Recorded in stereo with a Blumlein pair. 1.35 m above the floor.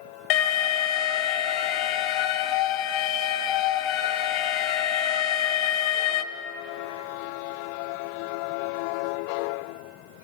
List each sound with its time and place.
0.3 s an alarm: 40° left, 0.6 m